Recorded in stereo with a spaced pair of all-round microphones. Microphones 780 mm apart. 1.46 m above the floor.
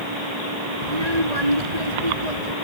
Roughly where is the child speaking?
Right.